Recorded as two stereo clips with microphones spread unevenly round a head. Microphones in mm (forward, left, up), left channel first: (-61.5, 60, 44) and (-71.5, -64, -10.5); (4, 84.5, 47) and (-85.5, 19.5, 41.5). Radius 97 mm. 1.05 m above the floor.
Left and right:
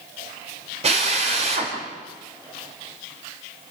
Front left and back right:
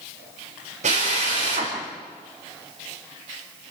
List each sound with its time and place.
0.8 s a drill: 120° right, 5 m